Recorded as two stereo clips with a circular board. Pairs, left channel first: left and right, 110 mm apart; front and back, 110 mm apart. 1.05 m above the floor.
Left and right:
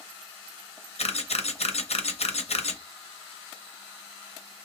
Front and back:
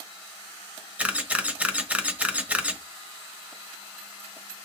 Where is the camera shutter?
100° left, 0.7 m.